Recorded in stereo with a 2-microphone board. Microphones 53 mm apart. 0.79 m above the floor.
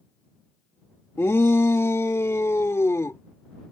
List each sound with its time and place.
1.2 s a shout: 50° left (ahead or behind); by 3.2 s 65° left (ahead or behind)